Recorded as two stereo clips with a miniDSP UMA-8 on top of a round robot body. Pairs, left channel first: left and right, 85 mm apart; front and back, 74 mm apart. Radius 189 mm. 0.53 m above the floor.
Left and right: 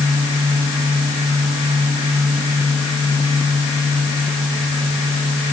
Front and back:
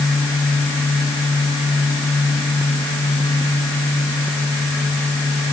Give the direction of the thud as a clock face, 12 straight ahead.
No thud in this recording.